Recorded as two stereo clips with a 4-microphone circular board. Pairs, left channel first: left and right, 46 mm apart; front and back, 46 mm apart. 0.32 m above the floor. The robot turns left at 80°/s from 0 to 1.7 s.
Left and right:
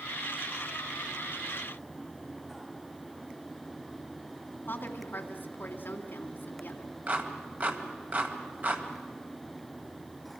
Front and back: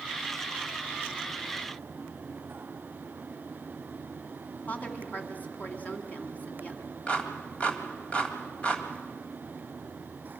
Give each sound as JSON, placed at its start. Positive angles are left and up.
{"t": 4.7, "sound": "a woman speaking", "azimuth_deg": 50, "distance_m": 2.5}
{"t": 7.1, "sound": "a clap", "azimuth_deg": -55, "distance_m": 1.7}